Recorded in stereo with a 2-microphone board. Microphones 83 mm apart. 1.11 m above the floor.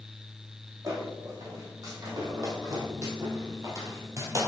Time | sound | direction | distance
0.8 | footsteps | 45° right (ahead or behind) | 4 m